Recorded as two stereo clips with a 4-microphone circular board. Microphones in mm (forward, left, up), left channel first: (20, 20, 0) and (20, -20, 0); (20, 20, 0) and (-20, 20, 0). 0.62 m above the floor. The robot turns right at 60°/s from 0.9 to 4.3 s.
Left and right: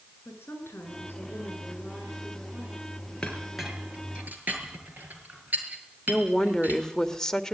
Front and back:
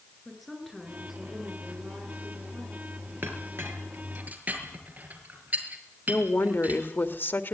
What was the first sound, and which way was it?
A woman speaking, 90° left.